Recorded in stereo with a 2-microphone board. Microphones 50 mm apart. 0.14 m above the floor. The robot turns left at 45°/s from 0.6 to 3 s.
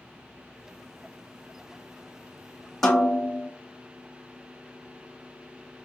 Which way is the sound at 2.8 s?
5° left (ahead or behind).